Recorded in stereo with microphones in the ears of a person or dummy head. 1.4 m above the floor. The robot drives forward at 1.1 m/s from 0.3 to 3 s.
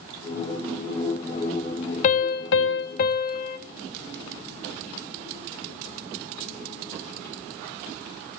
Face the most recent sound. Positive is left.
turn(degrees=45)  # may be behind; listen again after turning